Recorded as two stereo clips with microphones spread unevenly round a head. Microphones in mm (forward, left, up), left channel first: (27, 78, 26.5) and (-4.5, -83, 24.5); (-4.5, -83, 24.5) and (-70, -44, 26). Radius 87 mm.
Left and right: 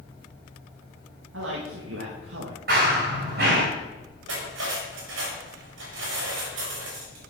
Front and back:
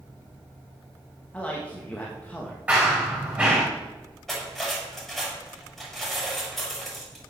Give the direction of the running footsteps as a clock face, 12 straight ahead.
5 o'clock.